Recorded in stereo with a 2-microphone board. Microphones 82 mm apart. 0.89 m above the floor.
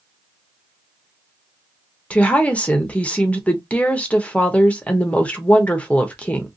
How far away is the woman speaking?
About 0.7 m.